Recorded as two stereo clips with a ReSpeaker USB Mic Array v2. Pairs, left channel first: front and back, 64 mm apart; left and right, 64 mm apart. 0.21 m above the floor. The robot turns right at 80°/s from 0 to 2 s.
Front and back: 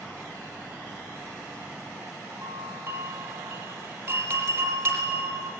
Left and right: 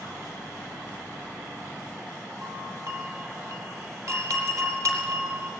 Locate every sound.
2.4 s a doorbell: 125° right, 6 m